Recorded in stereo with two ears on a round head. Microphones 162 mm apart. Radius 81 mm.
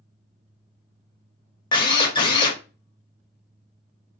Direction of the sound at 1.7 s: 25° left (ahead or behind).